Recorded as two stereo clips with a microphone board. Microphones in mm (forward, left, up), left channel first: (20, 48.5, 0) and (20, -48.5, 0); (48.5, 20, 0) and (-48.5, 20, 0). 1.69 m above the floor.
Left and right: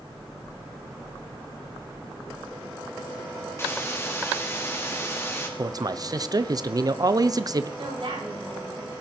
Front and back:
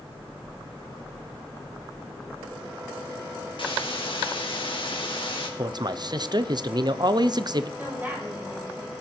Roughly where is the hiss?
Ahead left.